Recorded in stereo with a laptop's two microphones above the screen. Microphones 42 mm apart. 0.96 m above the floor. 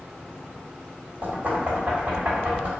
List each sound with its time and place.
1.2 s knocking: 40° right (ahead or behind), 1.5 m